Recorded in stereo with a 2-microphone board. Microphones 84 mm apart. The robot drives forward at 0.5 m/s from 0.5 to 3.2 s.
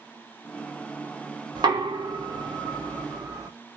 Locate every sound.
1.6 s knocking: 60° right (ahead or behind), 1.1 m; by 3.5 s 50° right (ahead or behind), 1.2 m